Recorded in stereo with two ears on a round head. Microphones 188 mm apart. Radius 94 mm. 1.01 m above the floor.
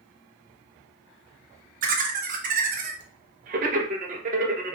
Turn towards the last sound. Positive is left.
turn(degrees=-40)  # may be behind; listen again after turning